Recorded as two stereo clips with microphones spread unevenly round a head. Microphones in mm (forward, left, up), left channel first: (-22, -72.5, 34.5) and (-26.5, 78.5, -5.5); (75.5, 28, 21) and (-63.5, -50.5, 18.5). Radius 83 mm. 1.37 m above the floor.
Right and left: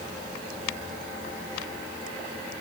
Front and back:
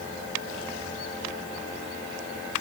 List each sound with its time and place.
Only background noise.